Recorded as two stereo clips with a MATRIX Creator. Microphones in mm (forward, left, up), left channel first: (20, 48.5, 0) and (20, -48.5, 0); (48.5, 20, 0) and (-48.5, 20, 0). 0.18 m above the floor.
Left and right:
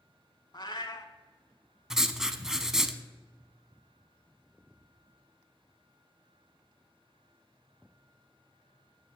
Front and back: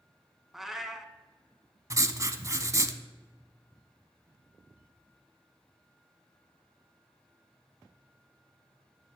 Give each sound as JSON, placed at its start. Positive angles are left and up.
{"t": 0.5, "sound": "a cat meowing", "azimuth_deg": 95, "distance_m": 0.7}
{"t": 1.9, "sound": "writing", "azimuth_deg": -170, "distance_m": 0.5}